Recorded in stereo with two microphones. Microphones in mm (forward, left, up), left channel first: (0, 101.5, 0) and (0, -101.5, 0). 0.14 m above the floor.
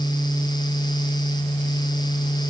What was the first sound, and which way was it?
Only background noise.